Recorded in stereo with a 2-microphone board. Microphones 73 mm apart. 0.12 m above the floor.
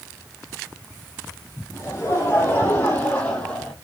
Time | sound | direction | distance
1.7 | laughter | 35° left (ahead or behind) | 5.5 m